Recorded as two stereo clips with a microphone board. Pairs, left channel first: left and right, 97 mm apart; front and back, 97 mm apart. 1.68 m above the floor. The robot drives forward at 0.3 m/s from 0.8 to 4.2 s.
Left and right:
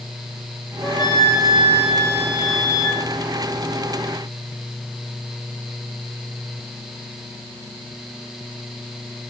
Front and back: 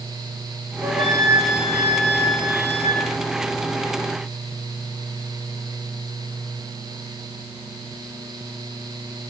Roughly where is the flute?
Behind left.